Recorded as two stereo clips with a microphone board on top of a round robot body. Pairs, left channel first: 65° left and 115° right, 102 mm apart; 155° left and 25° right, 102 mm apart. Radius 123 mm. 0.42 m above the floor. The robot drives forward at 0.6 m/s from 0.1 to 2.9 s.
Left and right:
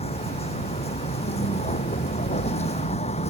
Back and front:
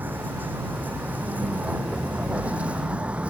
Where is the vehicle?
50° left; by 3.3 s 55° left.